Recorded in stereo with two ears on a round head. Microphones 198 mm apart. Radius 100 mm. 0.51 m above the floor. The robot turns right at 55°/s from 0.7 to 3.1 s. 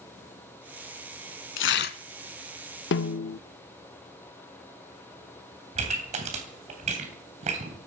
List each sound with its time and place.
1.6 s tearing paper: 60° left (ahead or behind), 0.8 m; by 2.0 s 40° left (ahead or behind), 0.8 m
2.9 s a snare drum: 55° left (ahead or behind), 0.5 m; by 3.4 s 50° left (ahead or behind), 0.5 m
5.8 s a pop: 30° right (ahead or behind), 3 m